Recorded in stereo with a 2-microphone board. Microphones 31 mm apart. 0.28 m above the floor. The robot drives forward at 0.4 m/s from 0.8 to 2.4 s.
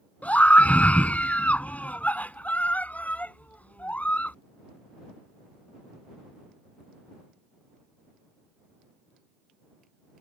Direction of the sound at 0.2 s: 55° left (ahead or behind).